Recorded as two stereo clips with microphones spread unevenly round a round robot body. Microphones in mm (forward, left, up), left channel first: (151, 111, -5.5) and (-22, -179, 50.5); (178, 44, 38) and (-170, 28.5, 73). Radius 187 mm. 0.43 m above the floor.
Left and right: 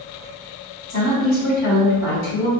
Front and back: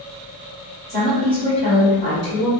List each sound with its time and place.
0.9 s a woman speaking: 80° left, 1.6 m